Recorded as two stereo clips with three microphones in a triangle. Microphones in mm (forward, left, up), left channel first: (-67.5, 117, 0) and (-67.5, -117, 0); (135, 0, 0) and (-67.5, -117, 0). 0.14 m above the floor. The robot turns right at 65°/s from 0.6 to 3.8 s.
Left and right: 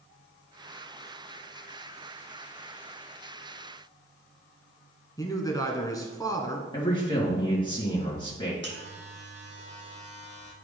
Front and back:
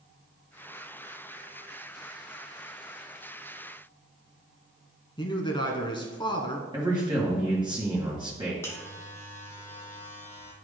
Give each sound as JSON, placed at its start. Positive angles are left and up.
{"t": 5.2, "sound": "a man speaking", "azimuth_deg": 45, "distance_m": 1.1}
{"t": 6.7, "sound": "a man speaking", "azimuth_deg": 150, "distance_m": 2.0}
{"t": 8.6, "sound": "a buzzer", "azimuth_deg": -50, "distance_m": 1.2}